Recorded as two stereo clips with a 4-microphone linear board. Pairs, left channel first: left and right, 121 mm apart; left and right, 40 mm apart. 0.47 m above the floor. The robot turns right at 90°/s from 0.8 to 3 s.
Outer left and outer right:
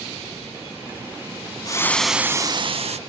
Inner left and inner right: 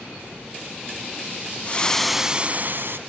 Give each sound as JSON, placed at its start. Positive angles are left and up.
{"t": 1.6, "sound": "frying", "azimuth_deg": 145, "distance_m": 0.5}